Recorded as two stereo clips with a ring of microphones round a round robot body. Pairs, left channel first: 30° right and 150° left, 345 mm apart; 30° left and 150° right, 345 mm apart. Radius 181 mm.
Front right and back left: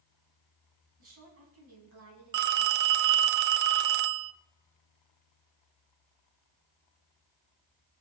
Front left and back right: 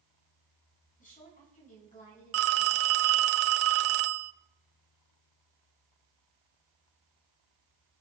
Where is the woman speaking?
100° left, 4.5 m.